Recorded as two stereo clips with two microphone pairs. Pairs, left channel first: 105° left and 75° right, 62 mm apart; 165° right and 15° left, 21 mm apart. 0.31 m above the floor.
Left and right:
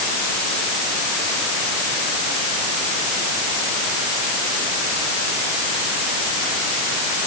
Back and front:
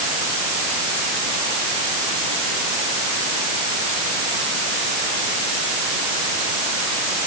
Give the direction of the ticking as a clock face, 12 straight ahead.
No ticking in this recording.